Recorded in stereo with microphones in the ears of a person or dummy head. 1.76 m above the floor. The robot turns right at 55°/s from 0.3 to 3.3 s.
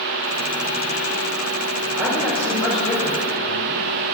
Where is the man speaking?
15° right, 7 m; by 3.8 s 60° left, 7 m.